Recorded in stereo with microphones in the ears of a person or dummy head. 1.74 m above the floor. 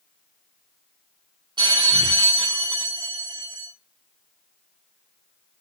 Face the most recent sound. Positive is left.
turn(degrees=-25)  # may be behind; listen again after turning